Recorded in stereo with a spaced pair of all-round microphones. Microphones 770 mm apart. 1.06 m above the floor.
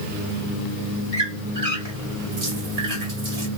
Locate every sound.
1.1 s a squeak: 45° right (ahead or behind), 2.5 m